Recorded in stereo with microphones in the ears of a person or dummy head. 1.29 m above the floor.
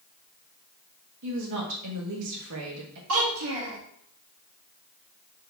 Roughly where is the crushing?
I don't hear crushing.